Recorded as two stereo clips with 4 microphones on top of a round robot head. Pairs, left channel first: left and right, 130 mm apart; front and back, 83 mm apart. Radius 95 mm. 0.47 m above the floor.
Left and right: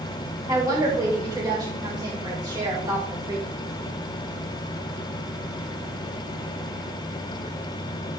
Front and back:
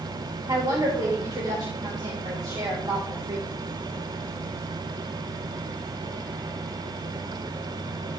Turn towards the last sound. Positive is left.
turn(degrees=-145)